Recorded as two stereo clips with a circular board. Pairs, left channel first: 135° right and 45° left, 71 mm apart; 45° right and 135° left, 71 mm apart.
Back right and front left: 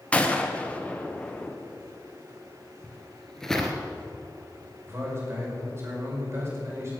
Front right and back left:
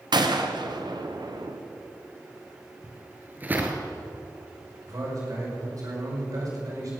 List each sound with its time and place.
0.1 s a gunshot: 150° left, 1.1 m
2.8 s footsteps: 155° left, 1.7 m
4.9 s a man speaking: 100° left, 5.5 m